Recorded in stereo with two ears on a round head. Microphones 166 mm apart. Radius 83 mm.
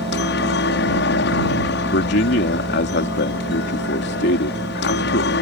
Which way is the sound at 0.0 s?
65° left (ahead or behind).